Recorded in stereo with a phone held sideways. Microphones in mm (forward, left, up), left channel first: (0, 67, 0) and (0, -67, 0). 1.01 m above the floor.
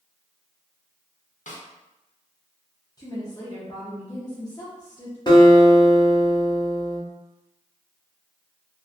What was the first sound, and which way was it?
A snare drum, 70° left (ahead or behind).